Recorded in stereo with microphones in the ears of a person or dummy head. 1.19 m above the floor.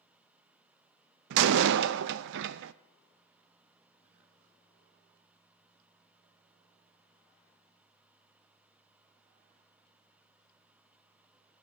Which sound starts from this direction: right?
A door slam, at 1.3 s.